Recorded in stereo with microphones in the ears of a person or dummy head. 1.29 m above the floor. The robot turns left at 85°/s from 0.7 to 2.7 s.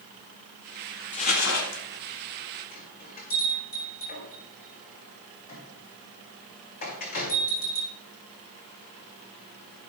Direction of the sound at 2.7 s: 45° left (ahead or behind).